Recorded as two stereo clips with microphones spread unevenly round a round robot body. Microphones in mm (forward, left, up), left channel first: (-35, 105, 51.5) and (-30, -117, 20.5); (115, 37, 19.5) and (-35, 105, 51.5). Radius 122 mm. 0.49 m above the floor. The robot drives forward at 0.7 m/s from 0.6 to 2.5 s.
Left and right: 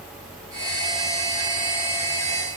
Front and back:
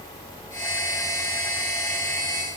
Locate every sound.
Only background noise.